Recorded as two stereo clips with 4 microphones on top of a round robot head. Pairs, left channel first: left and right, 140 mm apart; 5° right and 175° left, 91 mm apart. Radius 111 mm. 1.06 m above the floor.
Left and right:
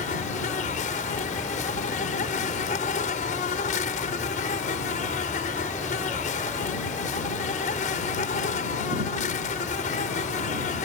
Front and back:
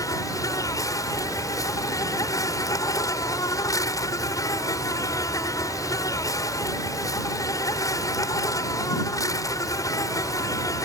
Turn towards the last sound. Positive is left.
turn(degrees=50)